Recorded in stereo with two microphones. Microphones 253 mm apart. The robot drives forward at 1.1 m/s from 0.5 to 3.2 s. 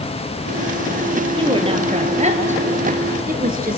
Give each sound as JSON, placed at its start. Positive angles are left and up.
{"t": 1.4, "sound": "a woman speaking", "side_deg": -20, "distance_m": 3.0}